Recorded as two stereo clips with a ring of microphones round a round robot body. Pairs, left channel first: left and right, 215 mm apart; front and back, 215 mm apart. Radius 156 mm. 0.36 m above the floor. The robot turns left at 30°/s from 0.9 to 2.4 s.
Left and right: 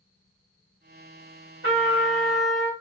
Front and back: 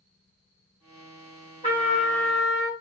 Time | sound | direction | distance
1.6 | a trumpet | 115° right | 1.8 m